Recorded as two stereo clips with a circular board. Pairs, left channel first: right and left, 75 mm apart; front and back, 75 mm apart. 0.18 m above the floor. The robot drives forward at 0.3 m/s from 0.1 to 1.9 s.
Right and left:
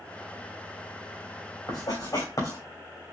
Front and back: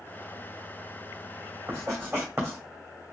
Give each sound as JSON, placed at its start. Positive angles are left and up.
{"t": 1.7, "sound": "writing", "azimuth_deg": -130, "distance_m": 3.0}